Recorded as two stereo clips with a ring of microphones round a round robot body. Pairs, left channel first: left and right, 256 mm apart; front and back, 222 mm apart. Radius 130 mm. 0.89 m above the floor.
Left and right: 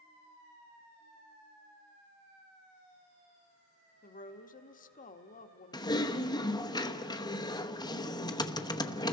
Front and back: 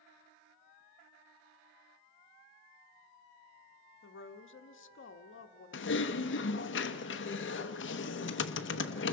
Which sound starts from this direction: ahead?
Typing on a keyboard, at 5.7 s.